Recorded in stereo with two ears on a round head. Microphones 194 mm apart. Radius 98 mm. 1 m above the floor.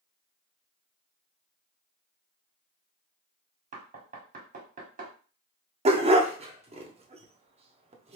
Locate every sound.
3.7 s knocking: 35° right (ahead or behind), 1.3 m
5.8 s a dog barking: 30° right (ahead or behind), 0.7 m